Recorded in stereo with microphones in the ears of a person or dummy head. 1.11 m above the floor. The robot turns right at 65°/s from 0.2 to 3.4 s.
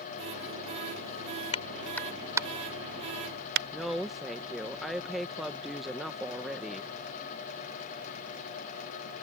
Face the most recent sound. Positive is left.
turn(degrees=-5)  # may be behind; listen again after turning